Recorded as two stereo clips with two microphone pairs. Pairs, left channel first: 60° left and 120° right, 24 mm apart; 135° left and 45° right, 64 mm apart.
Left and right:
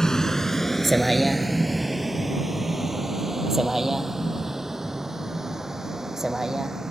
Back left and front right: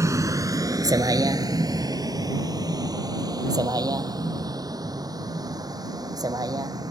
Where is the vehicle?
5° right; by 6.9 s 50° right.